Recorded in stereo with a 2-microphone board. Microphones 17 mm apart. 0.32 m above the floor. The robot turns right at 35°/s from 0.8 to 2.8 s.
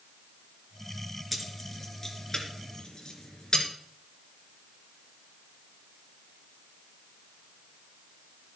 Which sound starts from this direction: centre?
Keys jangling, at 1.3 s.